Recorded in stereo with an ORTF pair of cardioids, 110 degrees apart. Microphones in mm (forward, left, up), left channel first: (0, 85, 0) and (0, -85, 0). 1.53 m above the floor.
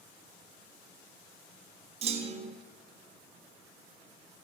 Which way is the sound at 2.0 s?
40° right.